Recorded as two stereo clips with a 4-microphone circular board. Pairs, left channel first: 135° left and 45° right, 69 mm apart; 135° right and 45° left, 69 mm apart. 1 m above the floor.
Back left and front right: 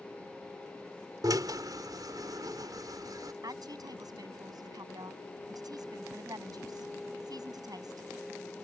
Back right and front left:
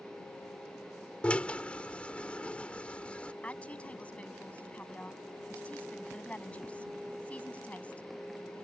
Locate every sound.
1.2 s a drill: 60° right
3.4 s a woman speaking: 65° right